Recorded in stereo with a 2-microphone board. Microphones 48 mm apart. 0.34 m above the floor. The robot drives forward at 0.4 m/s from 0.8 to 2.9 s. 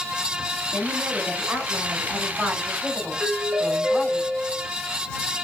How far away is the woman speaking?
About 1.6 m.